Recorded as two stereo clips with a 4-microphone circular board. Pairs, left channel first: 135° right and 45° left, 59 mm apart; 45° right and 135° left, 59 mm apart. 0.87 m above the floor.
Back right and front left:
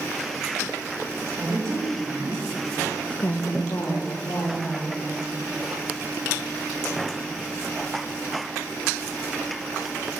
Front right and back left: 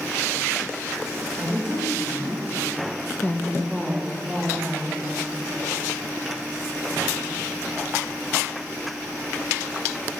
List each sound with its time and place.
1.4 s a woman speaking: 10° left, 2.5 m; by 5.0 s 155° right, 3 m